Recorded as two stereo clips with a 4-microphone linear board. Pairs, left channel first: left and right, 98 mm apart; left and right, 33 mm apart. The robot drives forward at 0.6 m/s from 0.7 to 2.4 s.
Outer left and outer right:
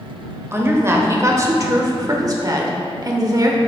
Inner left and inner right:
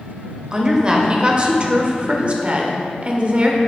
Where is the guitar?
I don't hear a guitar.